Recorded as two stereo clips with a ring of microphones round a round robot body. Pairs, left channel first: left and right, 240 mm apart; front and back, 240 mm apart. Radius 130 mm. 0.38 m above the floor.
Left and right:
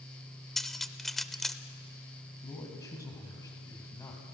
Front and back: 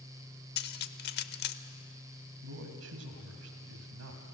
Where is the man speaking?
165° left, 2.5 m.